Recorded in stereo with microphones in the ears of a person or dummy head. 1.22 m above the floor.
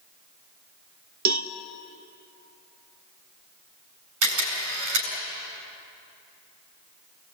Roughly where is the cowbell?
Right.